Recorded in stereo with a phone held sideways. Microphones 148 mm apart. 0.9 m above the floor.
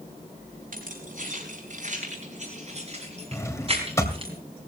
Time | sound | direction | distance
0.7 | keys jangling | 60° right (ahead or behind) | 5 m
3.3 | a drawer | 20° left (ahead or behind) | 2 m